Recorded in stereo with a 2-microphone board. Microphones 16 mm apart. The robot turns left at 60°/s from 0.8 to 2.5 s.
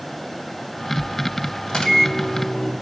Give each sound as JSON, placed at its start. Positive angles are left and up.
{"t": 1.7, "sound": "a microwave", "azimuth_deg": 80, "distance_m": 1.6}